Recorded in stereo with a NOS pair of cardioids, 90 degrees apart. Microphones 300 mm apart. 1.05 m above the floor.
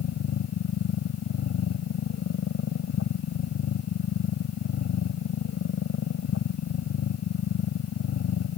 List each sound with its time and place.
0.0 s a machine running: 60° left